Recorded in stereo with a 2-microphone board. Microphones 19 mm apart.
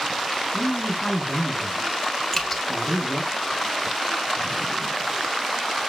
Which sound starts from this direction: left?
Dripping, at 2.3 s.